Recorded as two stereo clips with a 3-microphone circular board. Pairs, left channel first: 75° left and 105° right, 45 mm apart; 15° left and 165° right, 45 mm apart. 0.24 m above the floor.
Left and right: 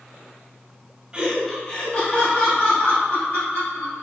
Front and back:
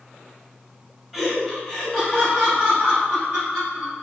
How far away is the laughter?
About 1.0 m.